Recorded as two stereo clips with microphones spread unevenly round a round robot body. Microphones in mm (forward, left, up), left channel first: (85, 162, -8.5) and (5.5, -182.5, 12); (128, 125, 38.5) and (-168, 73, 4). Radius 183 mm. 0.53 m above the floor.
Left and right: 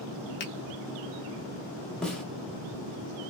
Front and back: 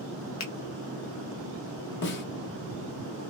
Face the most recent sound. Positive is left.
turn(degrees=0)